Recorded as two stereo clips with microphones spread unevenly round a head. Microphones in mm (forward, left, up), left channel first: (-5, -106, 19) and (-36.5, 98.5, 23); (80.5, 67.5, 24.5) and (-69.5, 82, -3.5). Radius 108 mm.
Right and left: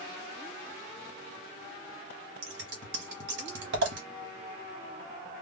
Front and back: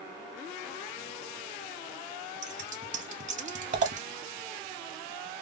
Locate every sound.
2.4 s scissors: 135° left, 1.0 m